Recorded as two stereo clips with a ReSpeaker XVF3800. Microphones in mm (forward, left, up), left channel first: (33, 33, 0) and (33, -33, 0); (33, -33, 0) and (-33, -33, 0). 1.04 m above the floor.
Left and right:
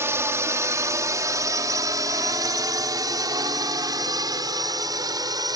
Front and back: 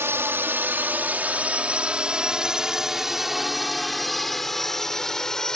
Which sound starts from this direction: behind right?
A drone, at 0.0 s.